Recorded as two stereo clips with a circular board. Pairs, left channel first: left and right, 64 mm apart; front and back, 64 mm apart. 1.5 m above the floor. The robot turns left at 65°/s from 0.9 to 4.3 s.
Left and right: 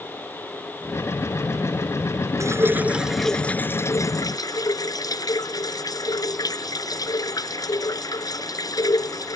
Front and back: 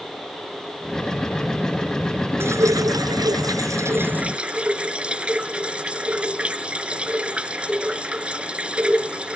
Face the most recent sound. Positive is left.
turn(degrees=110)